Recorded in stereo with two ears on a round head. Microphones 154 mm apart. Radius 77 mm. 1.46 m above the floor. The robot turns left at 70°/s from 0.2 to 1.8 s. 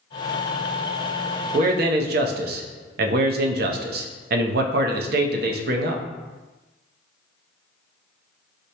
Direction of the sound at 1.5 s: 40° right (ahead or behind).